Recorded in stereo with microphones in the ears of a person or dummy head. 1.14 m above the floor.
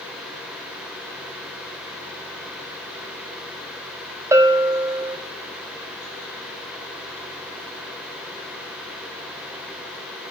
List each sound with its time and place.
4.3 s a bell: 10° right (ahead or behind), 0.7 m